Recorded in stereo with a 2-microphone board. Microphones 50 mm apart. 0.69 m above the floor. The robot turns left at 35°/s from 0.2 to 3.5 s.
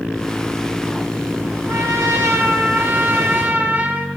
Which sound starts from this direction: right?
A trumpet, at 1.7 s.